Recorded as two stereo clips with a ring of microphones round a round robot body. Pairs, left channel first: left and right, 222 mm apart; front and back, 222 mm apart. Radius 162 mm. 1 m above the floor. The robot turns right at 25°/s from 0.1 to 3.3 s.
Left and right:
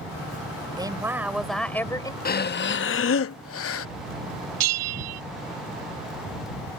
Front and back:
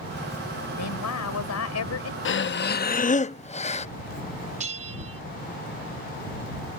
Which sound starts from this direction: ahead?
A woman speaking, at 0.8 s.